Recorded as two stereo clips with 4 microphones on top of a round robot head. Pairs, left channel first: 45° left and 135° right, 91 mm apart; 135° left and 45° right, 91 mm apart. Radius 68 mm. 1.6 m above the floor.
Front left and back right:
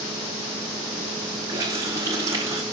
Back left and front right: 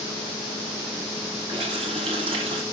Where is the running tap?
75° right, 4 m.